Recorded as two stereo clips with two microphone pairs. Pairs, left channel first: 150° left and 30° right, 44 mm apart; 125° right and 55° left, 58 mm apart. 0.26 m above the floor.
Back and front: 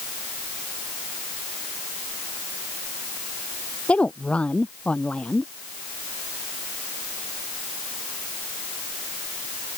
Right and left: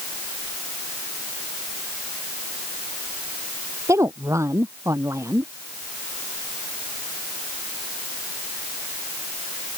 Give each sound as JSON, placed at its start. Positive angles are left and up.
{"t": 3.9, "sound": "a woman speaking", "azimuth_deg": 85}